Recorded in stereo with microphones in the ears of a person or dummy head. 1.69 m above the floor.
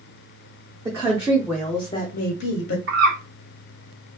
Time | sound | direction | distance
0.8 | a woman speaking | 25° right (ahead or behind) | 1.0 m
2.9 | a bird | 60° right (ahead or behind) | 1.6 m